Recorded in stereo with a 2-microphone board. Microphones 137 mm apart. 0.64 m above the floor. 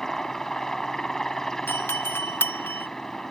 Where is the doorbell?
15° left (ahead or behind).